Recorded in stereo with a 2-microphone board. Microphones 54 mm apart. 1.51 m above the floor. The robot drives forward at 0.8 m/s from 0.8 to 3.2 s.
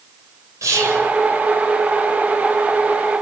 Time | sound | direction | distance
0.6 | whispering | 85° right | 6 m